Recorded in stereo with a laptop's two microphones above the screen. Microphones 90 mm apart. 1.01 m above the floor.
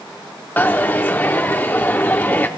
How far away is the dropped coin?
About 0.6 m.